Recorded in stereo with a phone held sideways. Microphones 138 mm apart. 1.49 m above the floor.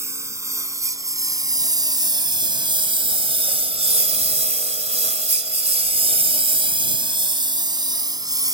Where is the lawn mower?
20° right (ahead or behind); by 8.5 s 25° right (ahead or behind).